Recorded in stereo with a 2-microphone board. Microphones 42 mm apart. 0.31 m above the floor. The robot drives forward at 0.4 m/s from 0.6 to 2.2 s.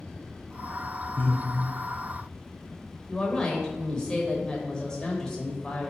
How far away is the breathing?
About 0.6 m.